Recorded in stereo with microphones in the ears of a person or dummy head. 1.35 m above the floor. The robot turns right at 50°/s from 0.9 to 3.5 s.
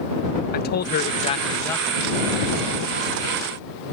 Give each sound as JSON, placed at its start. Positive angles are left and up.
{"t": 0.5, "sound": "a man speaking", "azimuth_deg": 130}